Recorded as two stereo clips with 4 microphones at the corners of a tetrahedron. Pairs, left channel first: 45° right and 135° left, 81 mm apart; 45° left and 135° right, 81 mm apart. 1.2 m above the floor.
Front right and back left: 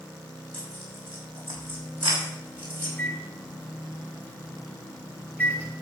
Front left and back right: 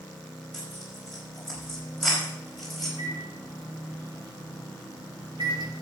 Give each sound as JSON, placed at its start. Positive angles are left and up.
{"t": 0.5, "sound": "tearing paper", "azimuth_deg": 135, "distance_m": 5.0}
{"t": 3.0, "sound": "a microwave", "azimuth_deg": -115, "distance_m": 3.0}